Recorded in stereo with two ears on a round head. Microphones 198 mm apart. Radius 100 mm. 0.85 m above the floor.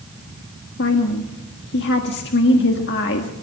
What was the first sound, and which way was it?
A woman speaking, 50° left (ahead or behind).